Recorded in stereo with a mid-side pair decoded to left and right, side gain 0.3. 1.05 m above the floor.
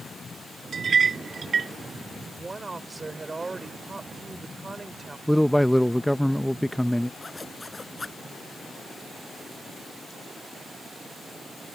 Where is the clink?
65° right.